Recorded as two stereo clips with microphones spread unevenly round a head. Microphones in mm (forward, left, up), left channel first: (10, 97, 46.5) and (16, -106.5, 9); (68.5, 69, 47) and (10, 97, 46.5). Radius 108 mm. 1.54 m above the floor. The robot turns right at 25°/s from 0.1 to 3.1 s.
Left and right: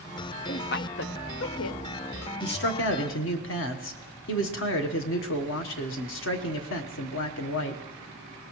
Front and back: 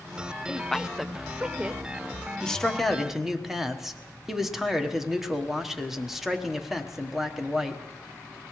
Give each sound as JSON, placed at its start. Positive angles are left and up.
{"t": 0.5, "sound": "a woman speaking", "azimuth_deg": 55, "distance_m": 0.8}
{"t": 2.4, "sound": "a man speaking", "azimuth_deg": 50, "distance_m": 1.3}